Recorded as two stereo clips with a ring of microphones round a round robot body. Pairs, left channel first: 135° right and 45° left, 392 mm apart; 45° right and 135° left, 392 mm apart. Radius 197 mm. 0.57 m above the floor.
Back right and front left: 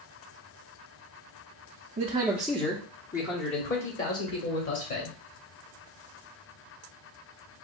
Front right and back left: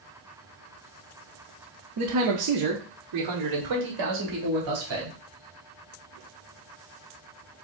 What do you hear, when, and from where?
2.0 s a man speaking: 110° left, 0.7 m; by 5.2 s straight behind, 1.9 m